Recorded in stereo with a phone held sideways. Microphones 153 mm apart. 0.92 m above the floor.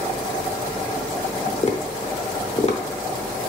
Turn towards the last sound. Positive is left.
turn(degrees=45)  # may be behind; listen again after turning